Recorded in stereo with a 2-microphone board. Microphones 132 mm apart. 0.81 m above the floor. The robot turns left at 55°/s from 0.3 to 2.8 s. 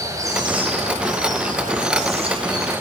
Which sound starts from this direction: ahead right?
Running water, at 0.0 s.